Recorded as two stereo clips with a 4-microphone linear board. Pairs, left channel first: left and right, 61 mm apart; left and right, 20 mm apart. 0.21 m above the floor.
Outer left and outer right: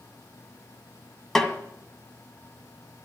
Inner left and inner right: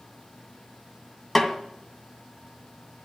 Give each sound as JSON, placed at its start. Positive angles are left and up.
{"t": 1.4, "sound": "a snare drum", "side_deg": 10, "distance_m": 1.7}